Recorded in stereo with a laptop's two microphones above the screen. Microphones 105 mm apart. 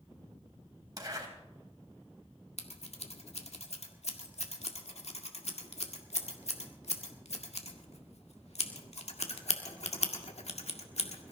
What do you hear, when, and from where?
1.0 s a zipper: 35° right (ahead or behind), 3.5 m
2.6 s scissors: 85° left, 1.8 m